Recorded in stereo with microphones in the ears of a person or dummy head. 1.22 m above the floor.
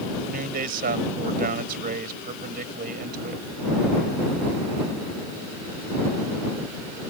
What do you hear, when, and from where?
0.2 s a man speaking: 55° right (ahead or behind)